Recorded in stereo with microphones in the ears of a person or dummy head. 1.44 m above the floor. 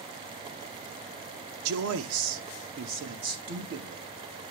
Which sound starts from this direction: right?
A man speaking, at 1.6 s.